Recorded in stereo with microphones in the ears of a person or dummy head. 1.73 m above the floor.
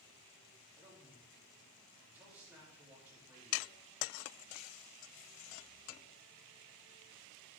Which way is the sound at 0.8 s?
10° right (ahead or behind).